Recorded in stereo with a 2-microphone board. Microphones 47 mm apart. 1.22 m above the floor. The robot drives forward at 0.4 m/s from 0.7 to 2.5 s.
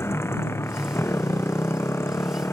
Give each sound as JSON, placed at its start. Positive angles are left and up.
{"t": 0.0, "sound": "a motorcycle", "side_deg": 80}